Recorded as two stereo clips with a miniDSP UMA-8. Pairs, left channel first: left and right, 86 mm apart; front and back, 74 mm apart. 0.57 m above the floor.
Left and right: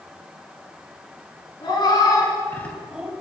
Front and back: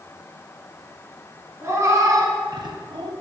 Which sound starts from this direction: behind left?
A cat meowing, at 1.6 s.